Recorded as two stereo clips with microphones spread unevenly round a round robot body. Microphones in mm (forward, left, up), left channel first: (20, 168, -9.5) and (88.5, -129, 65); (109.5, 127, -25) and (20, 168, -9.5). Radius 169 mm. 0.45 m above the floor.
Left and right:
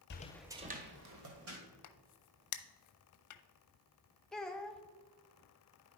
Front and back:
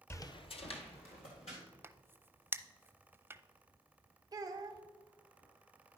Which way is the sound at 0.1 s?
45° left.